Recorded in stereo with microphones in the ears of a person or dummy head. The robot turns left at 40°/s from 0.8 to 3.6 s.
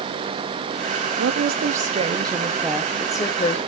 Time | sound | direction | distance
1.2 | a woman speaking | 115° right | 0.8 m